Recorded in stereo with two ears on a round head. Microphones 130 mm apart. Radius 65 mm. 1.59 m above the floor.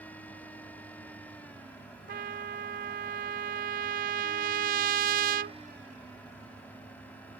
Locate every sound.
2.1 s a trumpet: 60° right (ahead or behind)